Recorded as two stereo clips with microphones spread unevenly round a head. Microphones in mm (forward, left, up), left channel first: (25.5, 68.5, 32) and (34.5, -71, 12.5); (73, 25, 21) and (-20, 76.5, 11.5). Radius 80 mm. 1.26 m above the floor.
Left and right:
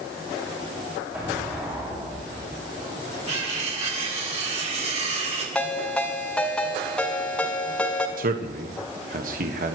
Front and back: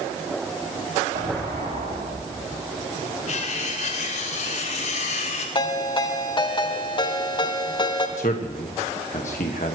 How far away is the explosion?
About 7.5 m.